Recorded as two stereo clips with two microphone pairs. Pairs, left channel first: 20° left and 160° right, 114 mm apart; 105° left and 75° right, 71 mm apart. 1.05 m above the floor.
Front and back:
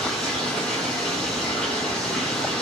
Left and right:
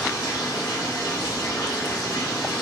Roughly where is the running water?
Left.